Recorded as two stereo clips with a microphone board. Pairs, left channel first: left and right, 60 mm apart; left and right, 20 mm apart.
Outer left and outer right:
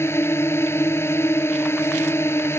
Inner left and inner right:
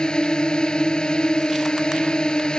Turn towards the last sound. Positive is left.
turn(degrees=45)  # may be behind; listen again after turning